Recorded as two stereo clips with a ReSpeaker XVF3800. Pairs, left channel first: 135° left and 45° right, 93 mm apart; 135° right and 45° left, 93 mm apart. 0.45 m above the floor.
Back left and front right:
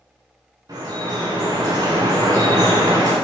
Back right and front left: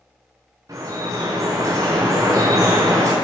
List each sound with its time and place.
0.7 s dripping: 5° right, 6 m